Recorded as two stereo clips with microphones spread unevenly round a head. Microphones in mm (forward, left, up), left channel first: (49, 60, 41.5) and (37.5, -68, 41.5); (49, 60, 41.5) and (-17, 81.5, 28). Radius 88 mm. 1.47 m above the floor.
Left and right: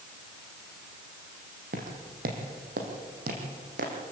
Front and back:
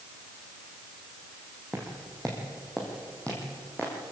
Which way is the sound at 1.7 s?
105° right.